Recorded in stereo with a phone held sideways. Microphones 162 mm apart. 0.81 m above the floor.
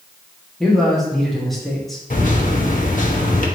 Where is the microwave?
55° left (ahead or behind), 0.7 m.